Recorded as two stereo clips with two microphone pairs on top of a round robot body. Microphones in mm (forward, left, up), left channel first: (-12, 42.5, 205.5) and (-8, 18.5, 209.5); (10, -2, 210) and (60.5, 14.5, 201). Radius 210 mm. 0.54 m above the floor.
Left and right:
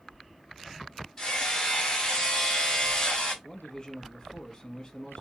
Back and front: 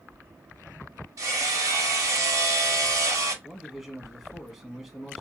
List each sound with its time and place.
1.2 s hammering: 30° left, 1.4 m
3.4 s a man speaking: 80° left, 1.5 m